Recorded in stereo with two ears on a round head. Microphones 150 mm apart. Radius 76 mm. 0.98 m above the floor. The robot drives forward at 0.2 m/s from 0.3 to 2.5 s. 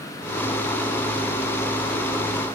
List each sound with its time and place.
Only background noise.